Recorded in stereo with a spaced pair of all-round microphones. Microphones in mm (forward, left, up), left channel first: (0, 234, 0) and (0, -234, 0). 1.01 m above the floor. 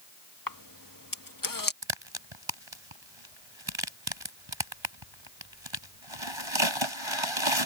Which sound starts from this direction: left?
A camera shutter, at 0.5 s.